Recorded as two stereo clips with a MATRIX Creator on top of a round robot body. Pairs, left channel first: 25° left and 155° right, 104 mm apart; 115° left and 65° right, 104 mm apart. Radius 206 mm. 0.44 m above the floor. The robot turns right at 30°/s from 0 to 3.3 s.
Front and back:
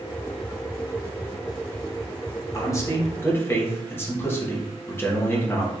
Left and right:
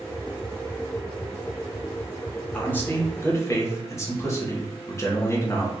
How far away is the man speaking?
About 1.5 m.